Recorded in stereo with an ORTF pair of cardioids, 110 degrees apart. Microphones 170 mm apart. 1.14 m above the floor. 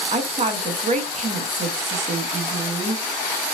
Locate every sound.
0.1 s a woman speaking: 45° right, 1.2 m